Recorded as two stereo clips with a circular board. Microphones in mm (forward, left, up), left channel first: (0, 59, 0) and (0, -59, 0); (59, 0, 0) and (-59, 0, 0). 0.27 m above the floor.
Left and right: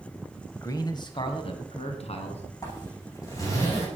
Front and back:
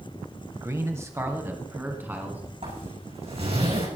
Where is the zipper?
150° left, 10 m.